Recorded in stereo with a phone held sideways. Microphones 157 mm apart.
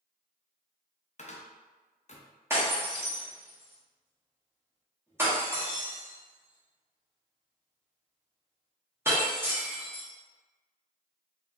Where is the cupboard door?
50° left (ahead or behind), 0.5 m.